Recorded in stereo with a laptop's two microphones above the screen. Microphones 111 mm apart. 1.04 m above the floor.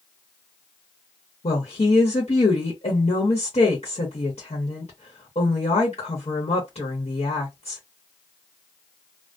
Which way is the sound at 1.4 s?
70° left (ahead or behind).